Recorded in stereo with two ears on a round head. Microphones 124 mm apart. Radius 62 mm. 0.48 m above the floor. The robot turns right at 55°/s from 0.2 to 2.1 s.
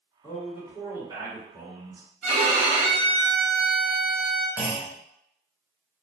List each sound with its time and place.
0.2 s a man speaking: 170° left, 1.6 m; by 2.0 s 95° right, 1.6 m
2.2 s a violin: 55° right (ahead or behind), 1.1 m
4.6 s a clunk: 10° right (ahead or behind), 1.3 m